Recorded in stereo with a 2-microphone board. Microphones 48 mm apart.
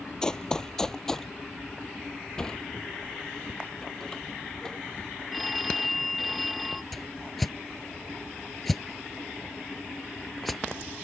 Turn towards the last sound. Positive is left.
turn(degrees=5)  # may be behind; listen again after turning